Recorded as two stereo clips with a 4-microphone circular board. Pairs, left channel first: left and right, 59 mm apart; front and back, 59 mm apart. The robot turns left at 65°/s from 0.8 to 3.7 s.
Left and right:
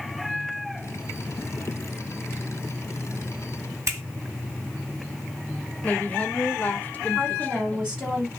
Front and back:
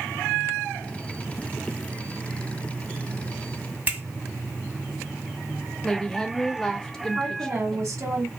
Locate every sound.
3.9 s a finger snap: 120° right, 1.9 m
5.8 s a woman speaking: 65° left, 0.7 m
7.2 s a woman speaking: 165° right, 1.6 m